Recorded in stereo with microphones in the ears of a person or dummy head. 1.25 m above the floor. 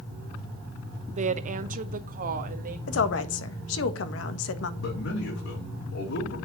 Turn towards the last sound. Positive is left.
turn(degrees=80)